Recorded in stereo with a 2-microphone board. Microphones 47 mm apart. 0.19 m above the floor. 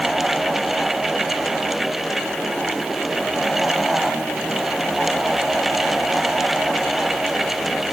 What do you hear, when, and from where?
Only background noise.